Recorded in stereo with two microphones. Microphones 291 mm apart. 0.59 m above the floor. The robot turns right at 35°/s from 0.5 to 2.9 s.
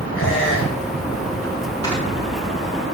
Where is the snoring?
15° left (ahead or behind), 5 m; by 2.0 s 20° left (ahead or behind), 5 m.